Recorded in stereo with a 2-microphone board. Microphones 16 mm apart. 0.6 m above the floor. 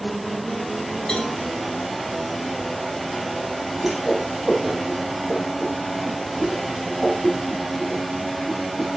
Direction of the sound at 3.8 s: 20° right (ahead or behind).